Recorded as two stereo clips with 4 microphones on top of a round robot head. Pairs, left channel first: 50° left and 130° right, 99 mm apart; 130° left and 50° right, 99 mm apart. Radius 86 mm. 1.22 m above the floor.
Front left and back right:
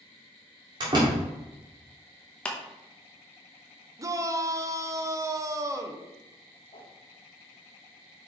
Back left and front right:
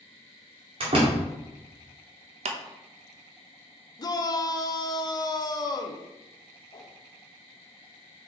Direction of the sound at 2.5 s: 30° right.